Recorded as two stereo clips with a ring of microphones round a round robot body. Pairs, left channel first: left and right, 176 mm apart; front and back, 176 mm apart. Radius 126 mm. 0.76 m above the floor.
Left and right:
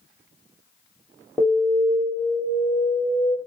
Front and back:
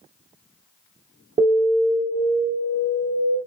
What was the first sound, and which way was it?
An alarm, straight behind.